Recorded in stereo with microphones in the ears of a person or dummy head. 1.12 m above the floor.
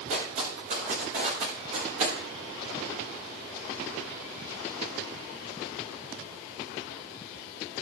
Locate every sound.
0.1 s footsteps: 50° right (ahead or behind), 5.5 m; by 2.1 s 40° right (ahead or behind), 6.5 m